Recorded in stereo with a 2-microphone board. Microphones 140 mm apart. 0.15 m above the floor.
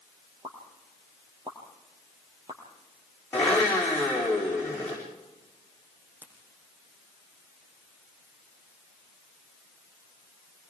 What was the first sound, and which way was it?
A pop, 35° right (ahead or behind).